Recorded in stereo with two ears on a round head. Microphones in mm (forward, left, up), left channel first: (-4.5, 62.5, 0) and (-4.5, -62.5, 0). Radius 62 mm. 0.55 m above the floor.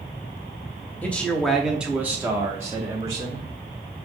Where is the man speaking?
10° left (ahead or behind), 0.7 m; by 3.5 s 25° right (ahead or behind), 1.2 m.